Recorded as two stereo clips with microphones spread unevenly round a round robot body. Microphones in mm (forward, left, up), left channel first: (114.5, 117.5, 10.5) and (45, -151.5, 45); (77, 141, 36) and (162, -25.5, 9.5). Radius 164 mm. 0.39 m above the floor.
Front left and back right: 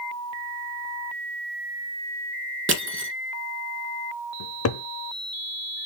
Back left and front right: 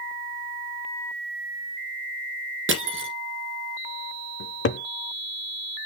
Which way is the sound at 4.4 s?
100° left.